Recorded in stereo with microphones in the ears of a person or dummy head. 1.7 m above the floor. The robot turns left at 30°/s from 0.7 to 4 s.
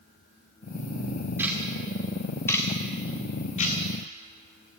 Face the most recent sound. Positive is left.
turn(degrees=45)  # may be behind; listen again after turning